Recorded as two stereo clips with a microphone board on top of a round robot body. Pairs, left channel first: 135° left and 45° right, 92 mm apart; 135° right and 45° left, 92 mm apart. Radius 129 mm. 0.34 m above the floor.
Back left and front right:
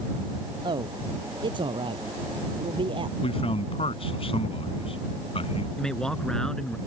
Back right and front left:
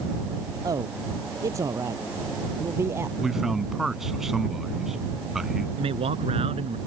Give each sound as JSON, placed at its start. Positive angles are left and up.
{"t": 0.6, "sound": "a man speaking", "azimuth_deg": -10}
{"t": 3.2, "sound": "a man speaking", "azimuth_deg": 130}
{"t": 5.8, "sound": "a man speaking", "azimuth_deg": 50}